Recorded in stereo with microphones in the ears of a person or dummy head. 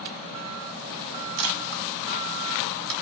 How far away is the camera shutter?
About 1.2 m.